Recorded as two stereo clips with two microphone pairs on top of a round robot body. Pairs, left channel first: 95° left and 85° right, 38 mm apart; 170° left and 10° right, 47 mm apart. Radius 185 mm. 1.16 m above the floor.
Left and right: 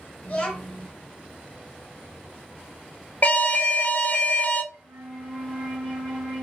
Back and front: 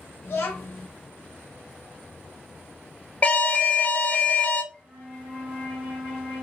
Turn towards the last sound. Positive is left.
turn(degrees=-65)